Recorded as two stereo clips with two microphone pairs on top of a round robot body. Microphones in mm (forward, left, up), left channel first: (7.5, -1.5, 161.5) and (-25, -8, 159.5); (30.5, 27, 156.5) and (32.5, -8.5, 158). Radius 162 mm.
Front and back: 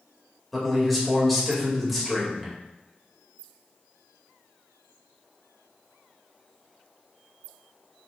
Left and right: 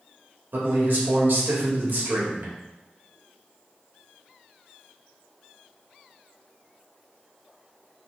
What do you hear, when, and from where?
0.5 s a man speaking: 80° right, 2 m